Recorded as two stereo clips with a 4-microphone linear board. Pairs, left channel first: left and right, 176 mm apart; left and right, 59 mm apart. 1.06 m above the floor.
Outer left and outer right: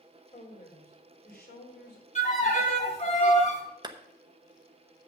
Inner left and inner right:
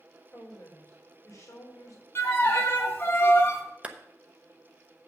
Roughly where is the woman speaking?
Left.